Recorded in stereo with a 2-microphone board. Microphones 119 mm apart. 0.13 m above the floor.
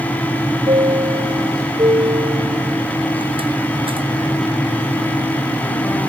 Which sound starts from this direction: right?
A chime, at 0.7 s.